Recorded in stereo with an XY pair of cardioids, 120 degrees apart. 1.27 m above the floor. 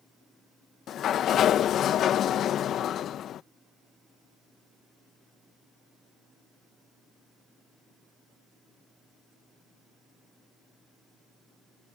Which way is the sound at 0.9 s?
60° left.